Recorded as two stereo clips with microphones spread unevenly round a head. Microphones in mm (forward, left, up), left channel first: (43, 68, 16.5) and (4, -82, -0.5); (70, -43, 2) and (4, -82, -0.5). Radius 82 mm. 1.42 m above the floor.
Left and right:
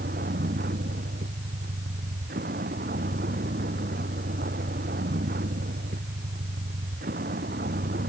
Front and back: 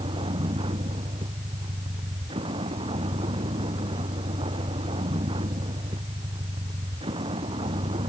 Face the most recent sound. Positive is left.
turn(degrees=-150)